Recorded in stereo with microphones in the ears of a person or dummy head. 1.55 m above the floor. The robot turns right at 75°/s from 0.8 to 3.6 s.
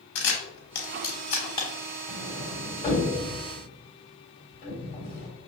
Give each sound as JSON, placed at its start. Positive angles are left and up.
{"t": 0.1, "sound": "a camera shutter", "side_deg": 50, "distance_m": 1.1}
{"t": 2.1, "sound": "a sliding door", "side_deg": -10, "distance_m": 1.5}